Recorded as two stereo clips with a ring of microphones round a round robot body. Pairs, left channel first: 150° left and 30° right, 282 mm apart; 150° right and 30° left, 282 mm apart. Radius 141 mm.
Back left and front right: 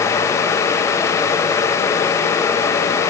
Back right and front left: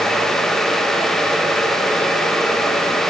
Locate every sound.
Only background noise.